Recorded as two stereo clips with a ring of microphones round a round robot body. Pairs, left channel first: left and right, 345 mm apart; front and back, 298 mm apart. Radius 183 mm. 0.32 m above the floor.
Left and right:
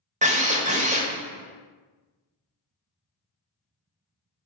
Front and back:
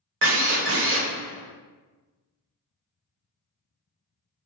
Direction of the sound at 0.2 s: 155° right.